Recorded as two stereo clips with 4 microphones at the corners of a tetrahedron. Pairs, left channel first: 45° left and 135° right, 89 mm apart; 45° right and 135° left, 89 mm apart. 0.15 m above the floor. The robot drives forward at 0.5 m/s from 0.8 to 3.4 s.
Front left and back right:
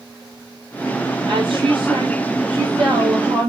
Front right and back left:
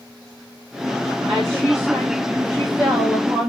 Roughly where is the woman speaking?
Behind.